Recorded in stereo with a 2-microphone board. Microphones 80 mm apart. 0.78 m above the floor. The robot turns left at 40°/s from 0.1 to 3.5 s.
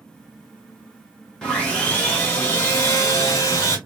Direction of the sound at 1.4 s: 175° left.